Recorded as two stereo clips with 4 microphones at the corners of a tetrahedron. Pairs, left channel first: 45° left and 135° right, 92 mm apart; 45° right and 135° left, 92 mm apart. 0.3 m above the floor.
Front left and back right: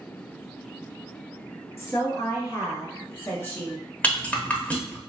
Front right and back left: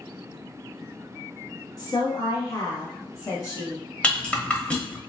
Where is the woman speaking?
10° right, 2.0 m; by 3.8 s 15° right, 1.1 m.